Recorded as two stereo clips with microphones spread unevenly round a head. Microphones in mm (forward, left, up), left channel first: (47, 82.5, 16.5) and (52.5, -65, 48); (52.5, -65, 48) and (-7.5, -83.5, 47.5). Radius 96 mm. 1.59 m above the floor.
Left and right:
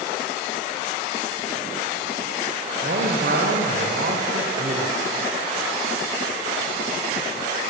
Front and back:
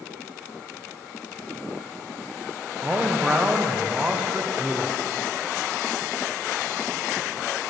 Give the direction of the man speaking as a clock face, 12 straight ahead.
3 o'clock.